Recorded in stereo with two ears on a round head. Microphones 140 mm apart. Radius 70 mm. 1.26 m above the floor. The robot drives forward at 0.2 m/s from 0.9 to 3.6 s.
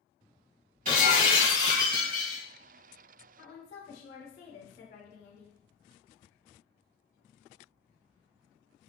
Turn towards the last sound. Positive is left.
turn(degrees=50)  # may be behind; listen again after turning